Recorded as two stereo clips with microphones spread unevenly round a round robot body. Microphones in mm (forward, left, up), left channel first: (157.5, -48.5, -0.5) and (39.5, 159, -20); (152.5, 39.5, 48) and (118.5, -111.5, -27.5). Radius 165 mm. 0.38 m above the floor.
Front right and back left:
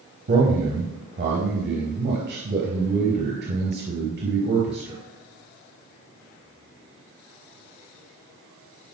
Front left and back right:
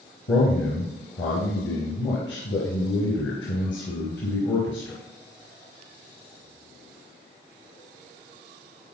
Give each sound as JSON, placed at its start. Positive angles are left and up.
{"t": 0.3, "sound": "a man speaking", "azimuth_deg": 85, "distance_m": 3.5}